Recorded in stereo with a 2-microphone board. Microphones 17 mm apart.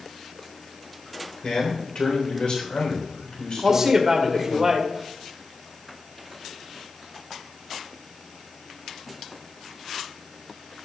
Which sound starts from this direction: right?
A man speaking, at 3.6 s.